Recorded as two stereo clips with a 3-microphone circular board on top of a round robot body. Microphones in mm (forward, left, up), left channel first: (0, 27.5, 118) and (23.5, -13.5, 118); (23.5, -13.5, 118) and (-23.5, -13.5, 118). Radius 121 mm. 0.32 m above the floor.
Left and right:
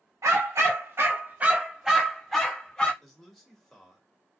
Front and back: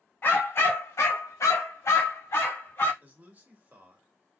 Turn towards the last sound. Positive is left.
turn(degrees=-155)